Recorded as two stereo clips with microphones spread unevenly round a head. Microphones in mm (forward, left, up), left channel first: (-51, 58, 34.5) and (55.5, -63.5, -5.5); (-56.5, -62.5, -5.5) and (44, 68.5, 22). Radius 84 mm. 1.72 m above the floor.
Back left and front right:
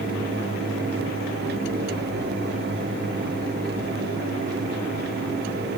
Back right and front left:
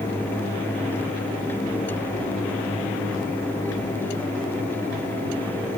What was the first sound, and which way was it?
Only background noise.